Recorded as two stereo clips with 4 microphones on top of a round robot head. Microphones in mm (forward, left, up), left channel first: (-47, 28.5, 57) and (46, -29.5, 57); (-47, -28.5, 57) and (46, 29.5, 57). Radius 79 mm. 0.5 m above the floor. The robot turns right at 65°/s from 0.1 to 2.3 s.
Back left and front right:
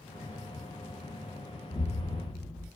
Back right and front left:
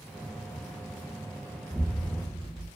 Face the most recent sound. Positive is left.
turn(degrees=140)